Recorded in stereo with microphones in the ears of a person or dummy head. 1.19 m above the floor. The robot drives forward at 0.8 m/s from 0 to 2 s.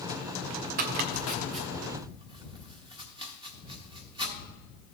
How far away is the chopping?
About 0.6 m.